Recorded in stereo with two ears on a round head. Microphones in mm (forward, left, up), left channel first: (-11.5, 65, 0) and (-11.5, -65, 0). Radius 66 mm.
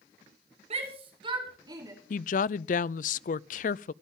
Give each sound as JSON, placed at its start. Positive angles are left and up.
{"t": 0.7, "sound": "a shout", "side_deg": -45, "distance_m": 5.0}
{"t": 2.1, "sound": "a woman speaking", "side_deg": 60, "distance_m": 0.5}